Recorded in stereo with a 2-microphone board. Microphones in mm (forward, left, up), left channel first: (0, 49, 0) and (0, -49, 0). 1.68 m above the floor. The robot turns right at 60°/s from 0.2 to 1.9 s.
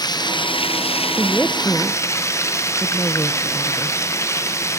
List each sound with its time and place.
0.0 s running water: 45° left, 0.8 m; by 4.8 s 150° left, 0.8 m
1.2 s a woman speaking: 20° right (ahead or behind), 0.9 m; by 3.9 s 20° left (ahead or behind), 0.9 m